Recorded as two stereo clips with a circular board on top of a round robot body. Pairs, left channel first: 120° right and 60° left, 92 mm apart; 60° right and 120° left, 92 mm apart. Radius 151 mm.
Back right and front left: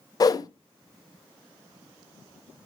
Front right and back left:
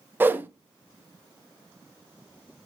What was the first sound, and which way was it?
A whoosh, 170° right.